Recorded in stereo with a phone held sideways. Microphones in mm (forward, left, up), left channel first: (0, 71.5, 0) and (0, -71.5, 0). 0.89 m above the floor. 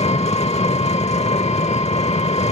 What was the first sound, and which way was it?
An engine running, 45° left (ahead or behind).